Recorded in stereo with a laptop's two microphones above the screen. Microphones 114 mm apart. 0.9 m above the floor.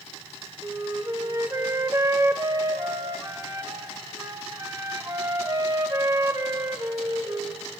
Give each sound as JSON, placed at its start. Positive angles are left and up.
{"t": 0.6, "sound": "a flute", "side_deg": -30, "distance_m": 0.6}